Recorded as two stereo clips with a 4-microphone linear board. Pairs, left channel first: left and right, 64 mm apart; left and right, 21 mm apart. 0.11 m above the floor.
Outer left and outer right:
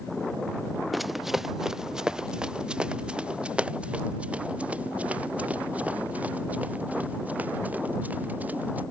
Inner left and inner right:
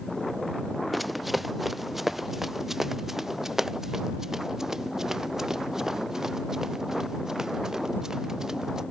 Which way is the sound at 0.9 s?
Centre (ahead or behind).